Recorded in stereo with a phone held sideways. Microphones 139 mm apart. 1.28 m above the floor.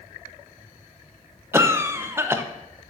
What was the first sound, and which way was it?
A cough, 15° right (ahead or behind).